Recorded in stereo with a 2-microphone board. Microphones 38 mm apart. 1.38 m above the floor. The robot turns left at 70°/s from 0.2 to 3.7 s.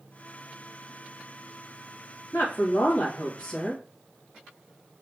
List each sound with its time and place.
2.3 s a woman speaking: 100° left, 2 m; by 3.8 s 5° left, 2 m